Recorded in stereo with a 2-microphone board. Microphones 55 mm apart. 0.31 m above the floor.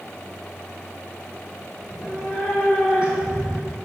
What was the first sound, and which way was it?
A cat meowing, 5° right (ahead or behind).